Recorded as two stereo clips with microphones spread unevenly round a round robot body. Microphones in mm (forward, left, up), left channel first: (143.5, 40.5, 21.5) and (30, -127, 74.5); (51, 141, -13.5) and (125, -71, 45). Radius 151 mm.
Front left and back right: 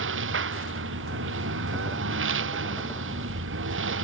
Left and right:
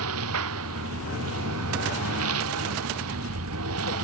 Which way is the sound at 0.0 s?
110° right.